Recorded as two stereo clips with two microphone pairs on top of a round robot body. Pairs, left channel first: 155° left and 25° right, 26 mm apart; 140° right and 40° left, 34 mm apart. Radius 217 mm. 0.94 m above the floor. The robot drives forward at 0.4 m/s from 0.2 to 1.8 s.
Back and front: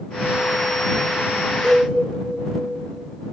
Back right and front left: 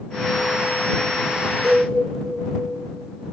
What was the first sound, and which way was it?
A cowbell, 65° left.